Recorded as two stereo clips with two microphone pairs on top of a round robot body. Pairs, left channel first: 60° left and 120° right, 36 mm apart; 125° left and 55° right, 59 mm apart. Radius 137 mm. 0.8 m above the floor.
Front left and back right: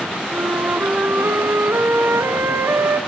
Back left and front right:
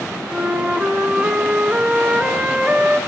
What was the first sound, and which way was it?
A flute, 130° right.